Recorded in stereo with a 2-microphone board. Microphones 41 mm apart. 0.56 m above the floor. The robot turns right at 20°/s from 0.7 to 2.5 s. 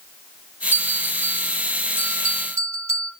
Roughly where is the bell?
Behind right.